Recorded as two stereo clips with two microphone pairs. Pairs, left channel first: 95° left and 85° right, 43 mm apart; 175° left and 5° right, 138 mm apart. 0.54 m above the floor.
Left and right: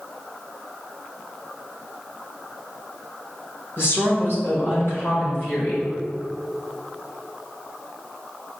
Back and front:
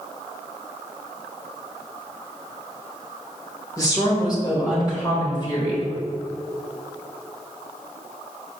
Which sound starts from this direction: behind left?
A woman speaking, at 3.8 s.